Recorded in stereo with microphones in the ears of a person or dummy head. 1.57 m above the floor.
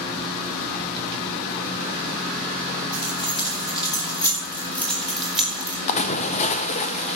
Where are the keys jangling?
30° left (ahead or behind), 6.5 m; by 5.8 s 10° right (ahead or behind), 3.5 m.